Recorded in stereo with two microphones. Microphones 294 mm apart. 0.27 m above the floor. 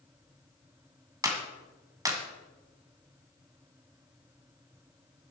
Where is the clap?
10° right (ahead or behind), 1.8 m.